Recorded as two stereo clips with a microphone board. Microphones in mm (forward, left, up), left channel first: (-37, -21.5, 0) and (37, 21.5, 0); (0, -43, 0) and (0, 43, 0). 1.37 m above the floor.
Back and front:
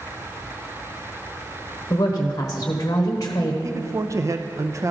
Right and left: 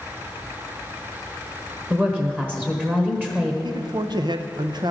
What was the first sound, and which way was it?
A woman speaking, 160° left.